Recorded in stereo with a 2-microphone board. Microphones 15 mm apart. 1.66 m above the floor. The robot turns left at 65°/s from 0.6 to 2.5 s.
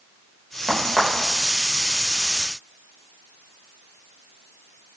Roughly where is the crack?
Right.